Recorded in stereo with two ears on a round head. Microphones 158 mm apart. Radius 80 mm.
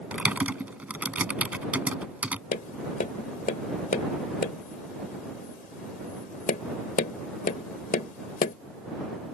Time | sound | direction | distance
0.1 | typing on a keyboard | 10° right (ahead or behind) | ?
2.5 | tapping | 50° left (ahead or behind) | ?